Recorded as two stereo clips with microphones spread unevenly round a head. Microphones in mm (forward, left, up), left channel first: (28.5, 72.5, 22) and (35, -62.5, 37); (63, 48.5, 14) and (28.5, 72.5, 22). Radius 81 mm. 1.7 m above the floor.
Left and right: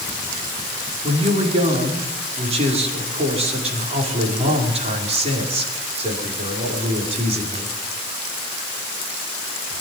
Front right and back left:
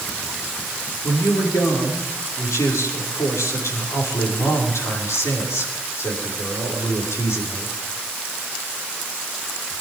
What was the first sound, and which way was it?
A man speaking, 45° right.